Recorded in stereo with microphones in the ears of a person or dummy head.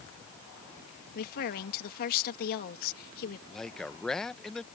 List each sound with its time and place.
1.1 s a woman speaking: 50° left (ahead or behind)
3.5 s a man speaking: centre (ahead or behind)